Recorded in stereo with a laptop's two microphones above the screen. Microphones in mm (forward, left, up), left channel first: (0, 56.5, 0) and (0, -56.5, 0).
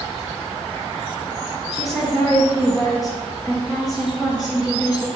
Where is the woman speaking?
5° right (ahead or behind), 1.6 m.